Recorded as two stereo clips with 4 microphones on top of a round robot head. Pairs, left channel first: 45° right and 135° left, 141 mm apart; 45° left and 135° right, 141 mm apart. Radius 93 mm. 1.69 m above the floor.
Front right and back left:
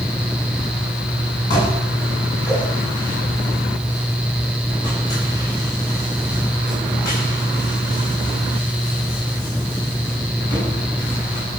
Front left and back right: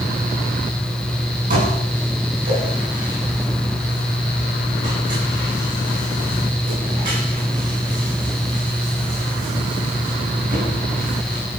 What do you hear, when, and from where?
1.5 s dishes clattering: 110° right, 9.5 m